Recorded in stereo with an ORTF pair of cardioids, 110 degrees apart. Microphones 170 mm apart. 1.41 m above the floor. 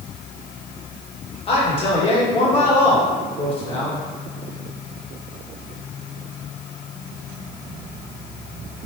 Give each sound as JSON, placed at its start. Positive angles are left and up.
{"t": 1.5, "sound": "a man speaking", "azimuth_deg": 35, "distance_m": 1.2}